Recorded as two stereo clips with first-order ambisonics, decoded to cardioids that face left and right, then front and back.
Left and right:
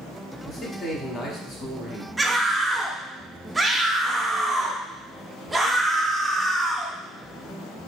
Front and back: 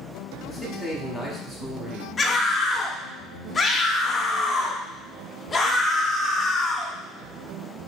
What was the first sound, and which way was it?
A man speaking, 110° left.